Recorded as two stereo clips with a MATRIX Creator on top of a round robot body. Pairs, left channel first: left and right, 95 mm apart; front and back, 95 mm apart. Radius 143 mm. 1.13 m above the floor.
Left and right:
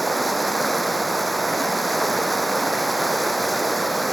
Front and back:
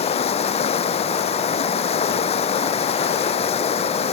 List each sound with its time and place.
0.0 s running water: straight ahead